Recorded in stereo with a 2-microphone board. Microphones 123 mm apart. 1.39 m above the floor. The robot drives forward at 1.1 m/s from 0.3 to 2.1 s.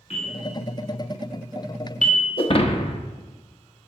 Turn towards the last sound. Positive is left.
turn(degrees=45)  # may be behind; listen again after turning